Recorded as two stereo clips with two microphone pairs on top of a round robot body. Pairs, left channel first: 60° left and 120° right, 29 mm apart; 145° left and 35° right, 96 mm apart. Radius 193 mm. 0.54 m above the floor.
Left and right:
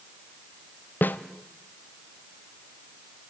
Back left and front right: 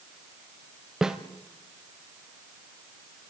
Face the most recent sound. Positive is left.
turn(degrees=45)